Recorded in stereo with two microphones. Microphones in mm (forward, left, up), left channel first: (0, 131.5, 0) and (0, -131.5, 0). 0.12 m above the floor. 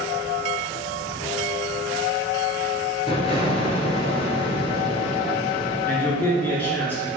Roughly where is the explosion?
Left.